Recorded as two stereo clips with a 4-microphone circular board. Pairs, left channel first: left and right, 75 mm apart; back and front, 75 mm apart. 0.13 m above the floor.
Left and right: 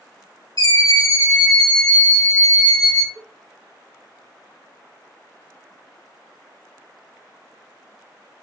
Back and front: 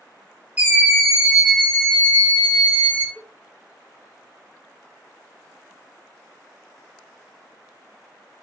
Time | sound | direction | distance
0.6 | a scream | 70° left | 3 m
3.1 | a cowbell | 70° left | 1.5 m